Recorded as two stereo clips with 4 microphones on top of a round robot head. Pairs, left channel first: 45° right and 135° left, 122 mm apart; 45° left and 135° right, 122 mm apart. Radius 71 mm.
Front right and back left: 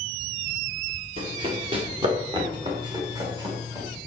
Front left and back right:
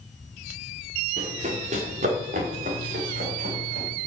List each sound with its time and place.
1.2 s running footsteps: 175° right, 5 m; by 3.9 s 160° right, 7.5 m